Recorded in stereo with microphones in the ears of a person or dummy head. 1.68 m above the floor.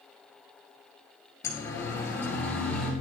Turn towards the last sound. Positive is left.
turn(degrees=10)  # may be behind; listen again after turning